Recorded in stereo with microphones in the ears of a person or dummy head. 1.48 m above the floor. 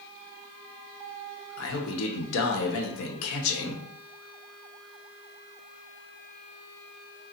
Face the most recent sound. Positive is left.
turn(degrees=80)